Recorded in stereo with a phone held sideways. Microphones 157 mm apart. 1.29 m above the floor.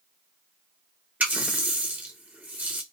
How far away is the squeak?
No squeak in this recording.